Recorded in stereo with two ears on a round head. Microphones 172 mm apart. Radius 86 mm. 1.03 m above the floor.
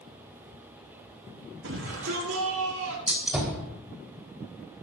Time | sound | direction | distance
1.6 | a shout | 80° right | 7 m
3.1 | a gunshot | 5° right (ahead or behind) | 4 m